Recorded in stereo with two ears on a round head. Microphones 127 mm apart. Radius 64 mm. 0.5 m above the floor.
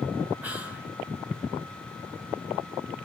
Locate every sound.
0.4 s whispering: 10° right (ahead or behind), 6 m